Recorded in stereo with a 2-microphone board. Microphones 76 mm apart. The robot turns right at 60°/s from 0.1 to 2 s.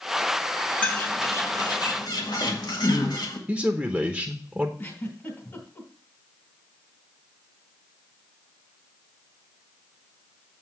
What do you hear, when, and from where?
0.8 s a bird: 15° left (ahead or behind), 1.8 m; by 3.4 s 70° left (ahead or behind), 1.8 m
3.5 s a man speaking: 10° right (ahead or behind), 0.9 m
4.8 s a giggle: 35° left (ahead or behind), 2.5 m